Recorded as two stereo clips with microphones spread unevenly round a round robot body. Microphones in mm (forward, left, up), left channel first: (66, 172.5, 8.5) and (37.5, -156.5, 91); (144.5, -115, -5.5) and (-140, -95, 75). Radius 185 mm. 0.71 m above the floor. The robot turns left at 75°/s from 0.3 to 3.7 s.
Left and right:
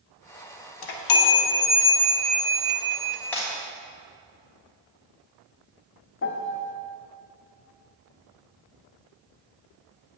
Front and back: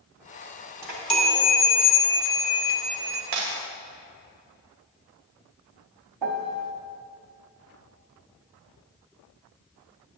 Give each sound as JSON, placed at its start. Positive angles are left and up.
{"t": 0.8, "sound": "a chime", "azimuth_deg": 90, "distance_m": 1.1}
{"t": 3.3, "sound": "breaking glass", "azimuth_deg": 170, "distance_m": 1.9}
{"t": 6.2, "sound": "a piano", "azimuth_deg": 140, "distance_m": 0.6}